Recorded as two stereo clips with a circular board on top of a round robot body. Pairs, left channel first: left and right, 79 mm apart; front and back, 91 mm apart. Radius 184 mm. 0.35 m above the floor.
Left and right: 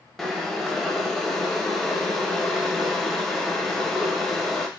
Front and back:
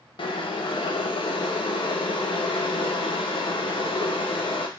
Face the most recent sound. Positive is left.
turn(degrees=0)